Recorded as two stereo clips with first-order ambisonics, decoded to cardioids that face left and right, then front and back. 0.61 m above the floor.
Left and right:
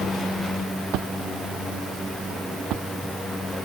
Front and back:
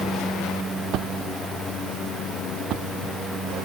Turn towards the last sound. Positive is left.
turn(degrees=-130)